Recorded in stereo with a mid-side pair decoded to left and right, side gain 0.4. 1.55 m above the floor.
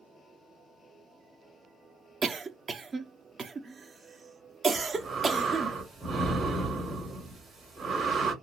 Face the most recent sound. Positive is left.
turn(degrees=-60)